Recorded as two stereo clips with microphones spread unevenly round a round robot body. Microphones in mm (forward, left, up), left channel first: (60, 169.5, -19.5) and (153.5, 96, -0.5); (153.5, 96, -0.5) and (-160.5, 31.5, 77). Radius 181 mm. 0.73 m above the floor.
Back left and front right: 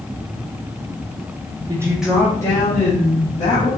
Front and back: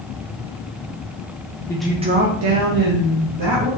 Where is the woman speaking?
5° right, 0.5 m; by 3.7 s 165° left, 1.3 m.